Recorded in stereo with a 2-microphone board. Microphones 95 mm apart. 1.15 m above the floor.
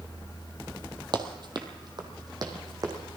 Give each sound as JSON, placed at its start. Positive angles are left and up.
{"t": 1.1, "sound": "running footsteps", "side_deg": -50, "distance_m": 1.6}